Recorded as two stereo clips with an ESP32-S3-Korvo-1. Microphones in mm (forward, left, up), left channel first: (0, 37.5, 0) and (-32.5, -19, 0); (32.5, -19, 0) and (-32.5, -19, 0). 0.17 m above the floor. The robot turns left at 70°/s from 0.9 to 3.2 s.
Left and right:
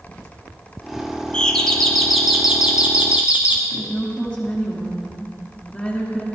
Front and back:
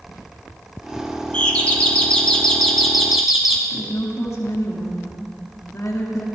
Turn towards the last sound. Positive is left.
turn(degrees=-20)